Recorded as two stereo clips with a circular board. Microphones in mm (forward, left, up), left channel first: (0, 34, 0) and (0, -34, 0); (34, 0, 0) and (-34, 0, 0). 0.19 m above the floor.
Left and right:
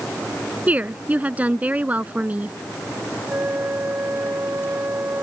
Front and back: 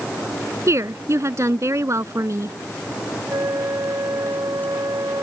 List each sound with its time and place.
0.7 s a woman speaking: 155° right
3.3 s a flute: 145° right